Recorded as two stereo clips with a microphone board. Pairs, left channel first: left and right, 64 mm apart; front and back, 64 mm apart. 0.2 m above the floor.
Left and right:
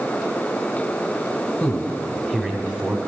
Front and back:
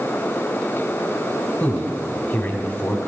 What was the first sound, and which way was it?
A man speaking, 40° left.